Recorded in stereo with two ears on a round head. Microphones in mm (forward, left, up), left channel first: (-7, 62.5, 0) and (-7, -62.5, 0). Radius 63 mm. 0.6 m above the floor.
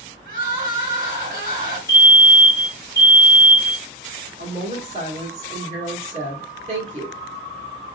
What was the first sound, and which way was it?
Crying, 70° right (ahead or behind).